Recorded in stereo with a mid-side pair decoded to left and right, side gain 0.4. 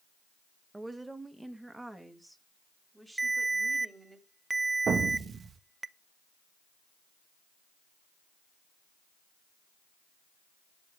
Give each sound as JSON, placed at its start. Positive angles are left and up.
{"t": 0.7, "sound": "a woman speaking", "azimuth_deg": -20, "distance_m": 1.7}
{"t": 3.2, "sound": "a ringtone", "azimuth_deg": -15, "distance_m": 0.9}
{"t": 4.9, "sound": "an explosion", "azimuth_deg": -55, "distance_m": 2.0}